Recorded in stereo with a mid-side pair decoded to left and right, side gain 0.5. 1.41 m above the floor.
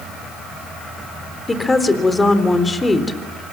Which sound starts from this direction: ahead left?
A woman speaking, at 1.5 s.